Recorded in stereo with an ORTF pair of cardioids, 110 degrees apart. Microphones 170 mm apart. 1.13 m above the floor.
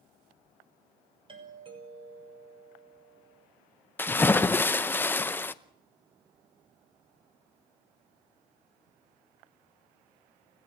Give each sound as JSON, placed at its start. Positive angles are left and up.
{"t": 1.3, "sound": "a doorbell", "azimuth_deg": -30, "distance_m": 6.0}
{"t": 4.0, "sound": "a splash", "azimuth_deg": 15, "distance_m": 0.7}